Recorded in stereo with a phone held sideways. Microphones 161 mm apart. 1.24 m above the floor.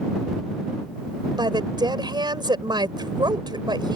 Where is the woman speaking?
30° right (ahead or behind).